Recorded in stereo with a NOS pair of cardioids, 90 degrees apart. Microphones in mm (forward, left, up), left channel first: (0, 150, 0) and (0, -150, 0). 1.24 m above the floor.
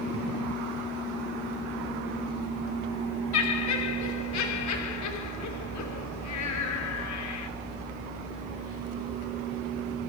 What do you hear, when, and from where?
3.3 s laughter: 70° left, 3.5 m